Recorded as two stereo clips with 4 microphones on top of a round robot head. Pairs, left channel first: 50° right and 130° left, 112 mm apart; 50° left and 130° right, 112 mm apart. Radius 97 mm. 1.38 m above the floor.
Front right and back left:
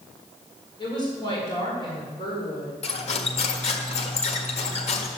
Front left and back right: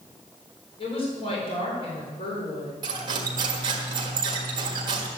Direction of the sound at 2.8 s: 80° right.